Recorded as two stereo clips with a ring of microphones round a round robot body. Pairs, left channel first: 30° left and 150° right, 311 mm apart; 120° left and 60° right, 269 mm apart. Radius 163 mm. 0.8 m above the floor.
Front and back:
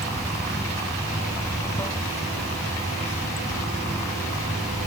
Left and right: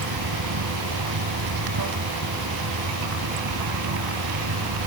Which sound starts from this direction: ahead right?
Running water, at 0.0 s.